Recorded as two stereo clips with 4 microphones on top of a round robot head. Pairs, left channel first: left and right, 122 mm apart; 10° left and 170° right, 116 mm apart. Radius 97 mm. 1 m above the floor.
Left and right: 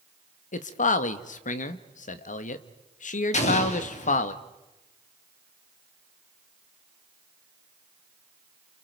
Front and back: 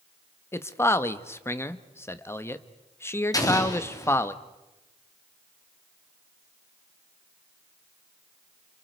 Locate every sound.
0.5 s a man speaking: 80° left, 1.3 m
3.3 s an explosion: 70° left, 3 m